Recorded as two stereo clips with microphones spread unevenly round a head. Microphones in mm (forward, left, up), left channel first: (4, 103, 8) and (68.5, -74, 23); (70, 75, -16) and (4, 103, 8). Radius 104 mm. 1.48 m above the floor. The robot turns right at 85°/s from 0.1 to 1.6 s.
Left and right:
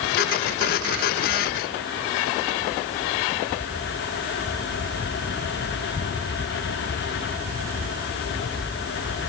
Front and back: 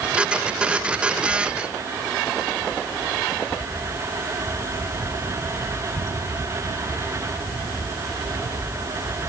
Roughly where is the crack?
I don't hear a crack.